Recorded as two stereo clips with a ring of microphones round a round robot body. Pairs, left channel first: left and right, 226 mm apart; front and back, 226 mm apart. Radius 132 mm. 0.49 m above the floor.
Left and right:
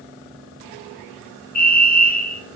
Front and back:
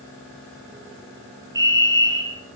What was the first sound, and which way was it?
A fire alarm, 115° left.